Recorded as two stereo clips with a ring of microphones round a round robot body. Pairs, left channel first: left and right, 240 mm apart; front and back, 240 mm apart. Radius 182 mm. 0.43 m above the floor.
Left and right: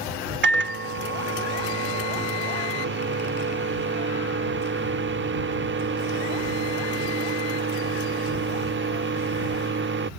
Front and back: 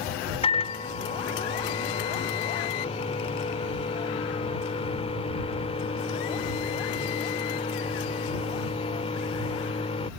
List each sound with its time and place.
0.4 s a microwave: 65° right